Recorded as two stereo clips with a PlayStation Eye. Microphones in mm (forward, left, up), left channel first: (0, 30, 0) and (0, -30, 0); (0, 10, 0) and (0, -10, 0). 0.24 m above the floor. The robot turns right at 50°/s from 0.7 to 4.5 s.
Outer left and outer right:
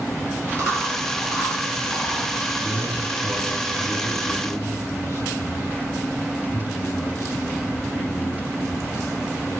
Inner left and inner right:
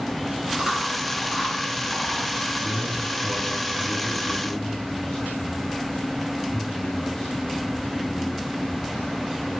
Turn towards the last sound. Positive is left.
turn(degrees=85)